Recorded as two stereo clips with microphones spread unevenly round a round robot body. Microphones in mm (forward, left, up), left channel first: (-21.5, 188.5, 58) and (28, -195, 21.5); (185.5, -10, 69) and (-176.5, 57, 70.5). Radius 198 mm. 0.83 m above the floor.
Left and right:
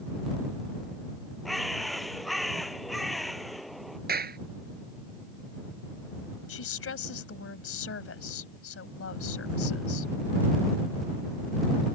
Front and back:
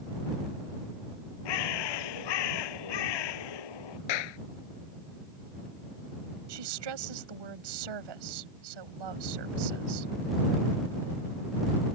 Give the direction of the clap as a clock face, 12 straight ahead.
1 o'clock.